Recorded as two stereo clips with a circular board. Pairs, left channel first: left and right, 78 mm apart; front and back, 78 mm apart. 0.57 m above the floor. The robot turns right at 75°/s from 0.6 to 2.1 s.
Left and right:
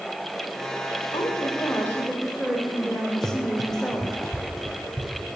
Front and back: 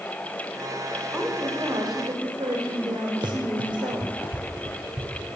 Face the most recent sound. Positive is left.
turn(degrees=170)